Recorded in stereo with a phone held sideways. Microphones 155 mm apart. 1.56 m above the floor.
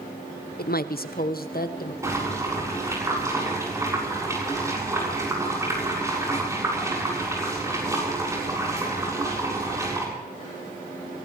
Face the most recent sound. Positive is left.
turn(degrees=-20)  # may be behind; listen again after turning